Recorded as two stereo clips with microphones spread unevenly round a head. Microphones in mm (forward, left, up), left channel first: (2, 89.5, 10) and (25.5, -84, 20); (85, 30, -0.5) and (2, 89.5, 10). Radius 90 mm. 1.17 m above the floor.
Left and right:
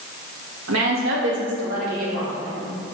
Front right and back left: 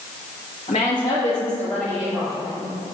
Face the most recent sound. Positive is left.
turn(degrees=-140)